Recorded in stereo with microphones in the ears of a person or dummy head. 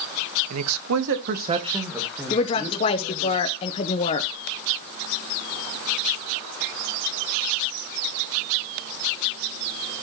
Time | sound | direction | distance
0.5 | a man speaking | 80° right | 1.2 m
2.3 | a woman speaking | 30° left (ahead or behind) | 0.7 m